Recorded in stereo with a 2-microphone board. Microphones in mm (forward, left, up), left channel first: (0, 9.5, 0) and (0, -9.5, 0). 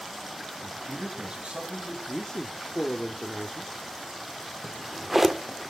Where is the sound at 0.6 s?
65° right (ahead or behind), 6.5 m.